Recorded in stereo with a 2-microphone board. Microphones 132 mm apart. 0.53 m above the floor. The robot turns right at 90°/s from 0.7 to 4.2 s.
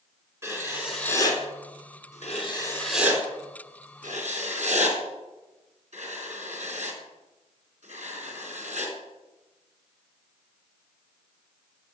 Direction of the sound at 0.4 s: 20° right (ahead or behind).